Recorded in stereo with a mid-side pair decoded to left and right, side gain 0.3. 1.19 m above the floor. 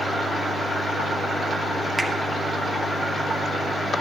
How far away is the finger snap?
About 1.4 m.